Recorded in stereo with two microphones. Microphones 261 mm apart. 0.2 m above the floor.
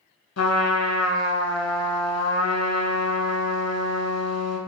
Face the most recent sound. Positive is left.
turn(degrees=70)  # may be behind; listen again after turning